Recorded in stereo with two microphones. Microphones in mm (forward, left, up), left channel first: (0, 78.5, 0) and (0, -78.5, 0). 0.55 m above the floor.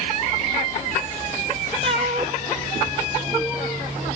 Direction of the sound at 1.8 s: 35° right (ahead or behind).